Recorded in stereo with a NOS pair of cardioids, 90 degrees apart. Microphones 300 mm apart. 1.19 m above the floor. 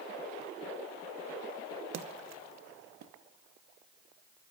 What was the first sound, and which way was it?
A splash, 60° right.